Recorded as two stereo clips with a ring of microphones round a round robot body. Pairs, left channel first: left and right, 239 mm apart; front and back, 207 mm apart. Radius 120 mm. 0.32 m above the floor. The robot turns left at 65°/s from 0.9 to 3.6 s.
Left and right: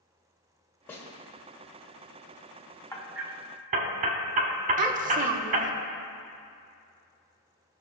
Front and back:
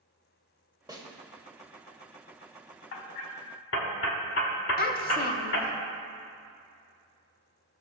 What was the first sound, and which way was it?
A snare drum, 155° left.